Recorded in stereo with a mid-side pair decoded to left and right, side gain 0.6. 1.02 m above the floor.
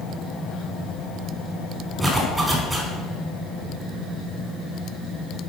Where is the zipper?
20° right, 2.5 m.